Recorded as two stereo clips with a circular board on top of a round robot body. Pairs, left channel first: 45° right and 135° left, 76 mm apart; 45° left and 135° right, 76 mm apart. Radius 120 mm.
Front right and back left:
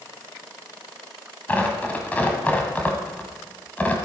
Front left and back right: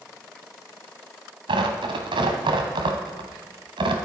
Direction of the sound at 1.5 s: 115° right.